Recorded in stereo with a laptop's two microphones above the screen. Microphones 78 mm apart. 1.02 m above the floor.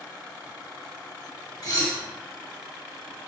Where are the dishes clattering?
45° left (ahead or behind), 0.8 m.